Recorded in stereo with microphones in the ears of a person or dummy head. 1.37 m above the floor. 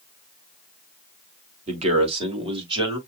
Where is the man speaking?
35° right (ahead or behind), 3 m; by 3.0 s 25° right (ahead or behind), 3 m.